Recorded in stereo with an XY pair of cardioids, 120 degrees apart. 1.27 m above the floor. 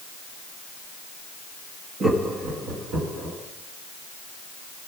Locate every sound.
2.0 s laughter: 40° right, 1.6 m; by 3.4 s 50° right, 2.5 m